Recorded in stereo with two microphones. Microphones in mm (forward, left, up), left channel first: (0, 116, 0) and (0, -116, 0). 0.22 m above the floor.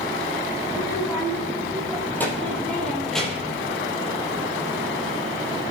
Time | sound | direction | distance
0.7 | a child speaking | 15° left (ahead or behind) | 7 m